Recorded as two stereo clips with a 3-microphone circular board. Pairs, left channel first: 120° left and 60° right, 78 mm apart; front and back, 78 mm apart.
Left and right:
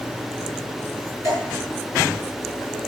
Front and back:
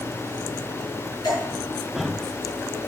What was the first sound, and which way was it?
Dripping, 10° right.